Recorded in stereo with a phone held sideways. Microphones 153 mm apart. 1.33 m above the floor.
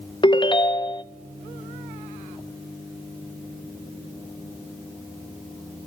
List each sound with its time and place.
0.2 s a ringtone: 30° left (ahead or behind), 0.5 m